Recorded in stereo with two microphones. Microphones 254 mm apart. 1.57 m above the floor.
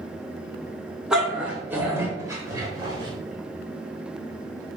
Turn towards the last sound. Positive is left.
turn(degrees=-20)  # may be behind; listen again after turning